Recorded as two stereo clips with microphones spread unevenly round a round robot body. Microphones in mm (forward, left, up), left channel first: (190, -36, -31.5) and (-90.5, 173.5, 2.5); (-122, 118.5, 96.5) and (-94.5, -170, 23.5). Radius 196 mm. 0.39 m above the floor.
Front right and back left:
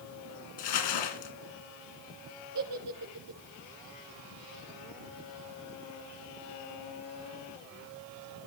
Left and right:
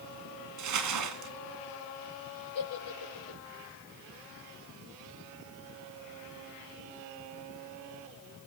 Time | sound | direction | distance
0.6 | crumpling | 65° right | 2.5 m
2.5 | a giggle | 105° left | 5.5 m